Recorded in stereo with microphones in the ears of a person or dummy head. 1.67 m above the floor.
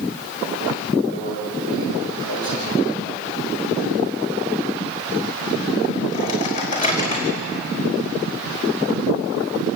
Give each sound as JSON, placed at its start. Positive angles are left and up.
{"t": 1.1, "sound": "a microwave", "side_deg": 40, "distance_m": 5.0}